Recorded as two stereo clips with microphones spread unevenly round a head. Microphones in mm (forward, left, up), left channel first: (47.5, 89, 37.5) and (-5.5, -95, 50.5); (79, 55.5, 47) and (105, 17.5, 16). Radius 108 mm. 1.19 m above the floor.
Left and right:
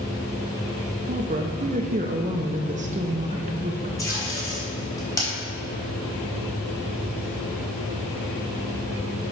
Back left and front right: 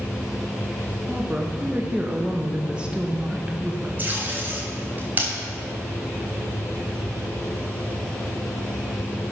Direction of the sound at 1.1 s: 65° right.